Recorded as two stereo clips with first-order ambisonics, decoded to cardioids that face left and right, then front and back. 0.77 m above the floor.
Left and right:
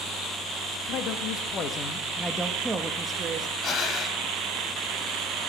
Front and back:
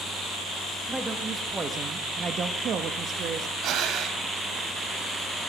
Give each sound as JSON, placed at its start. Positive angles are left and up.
{"t": 0.9, "sound": "a man speaking", "azimuth_deg": 95, "distance_m": 1.3}
{"t": 3.6, "sound": "breathing", "azimuth_deg": 140, "distance_m": 0.9}